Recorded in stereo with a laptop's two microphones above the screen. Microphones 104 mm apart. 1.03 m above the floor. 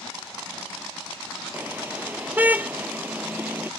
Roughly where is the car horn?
Centre.